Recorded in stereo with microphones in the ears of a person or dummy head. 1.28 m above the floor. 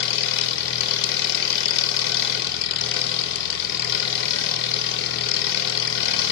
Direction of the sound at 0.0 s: 55° left (ahead or behind).